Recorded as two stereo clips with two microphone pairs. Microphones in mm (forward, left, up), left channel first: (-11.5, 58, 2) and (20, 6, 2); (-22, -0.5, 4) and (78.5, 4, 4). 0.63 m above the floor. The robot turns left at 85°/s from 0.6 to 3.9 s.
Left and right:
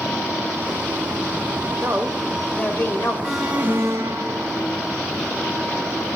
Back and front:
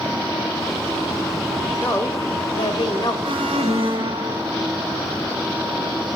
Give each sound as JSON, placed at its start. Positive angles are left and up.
{"t": 1.8, "sound": "a woman speaking", "azimuth_deg": -105, "distance_m": 2.5}
{"t": 3.2, "sound": "an alarm", "azimuth_deg": 35, "distance_m": 3.5}